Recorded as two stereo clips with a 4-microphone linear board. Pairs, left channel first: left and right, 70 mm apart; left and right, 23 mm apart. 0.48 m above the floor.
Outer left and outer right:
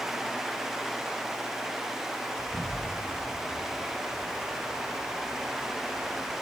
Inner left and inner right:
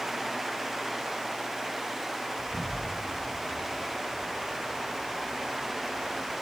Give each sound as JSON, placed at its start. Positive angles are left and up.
{"t": 2.4, "sound": "an explosion", "side_deg": -35, "distance_m": 3.0}